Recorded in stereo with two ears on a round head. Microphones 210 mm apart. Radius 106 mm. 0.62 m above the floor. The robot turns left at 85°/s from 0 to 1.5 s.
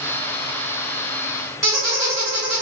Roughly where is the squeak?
Centre.